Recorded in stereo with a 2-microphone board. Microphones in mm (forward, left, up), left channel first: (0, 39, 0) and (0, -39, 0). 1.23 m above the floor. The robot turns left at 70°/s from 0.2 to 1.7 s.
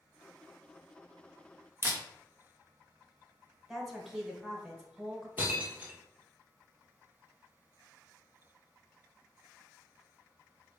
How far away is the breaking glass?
About 1.3 m.